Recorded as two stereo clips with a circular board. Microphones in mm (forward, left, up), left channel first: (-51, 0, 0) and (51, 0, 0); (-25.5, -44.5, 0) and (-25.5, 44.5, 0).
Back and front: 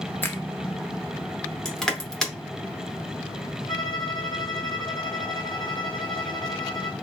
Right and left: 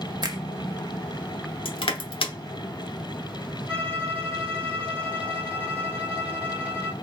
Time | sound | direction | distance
0.2 | a finger snap | 115° left | 0.6 m
1.6 | crushing | 95° right | 0.7 m
3.7 | a violin | 155° right | 1.2 m